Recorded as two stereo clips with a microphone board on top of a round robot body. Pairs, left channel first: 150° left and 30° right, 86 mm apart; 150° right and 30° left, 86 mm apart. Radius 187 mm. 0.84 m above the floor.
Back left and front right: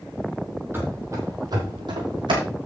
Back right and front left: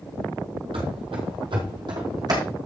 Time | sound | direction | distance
0.7 | running footsteps | 35° left | 1.9 m